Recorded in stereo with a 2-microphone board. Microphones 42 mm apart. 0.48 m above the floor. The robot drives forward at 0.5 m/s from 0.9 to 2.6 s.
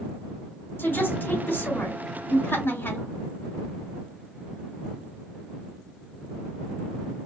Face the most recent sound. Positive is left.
turn(degrees=75)  # may be behind; listen again after turning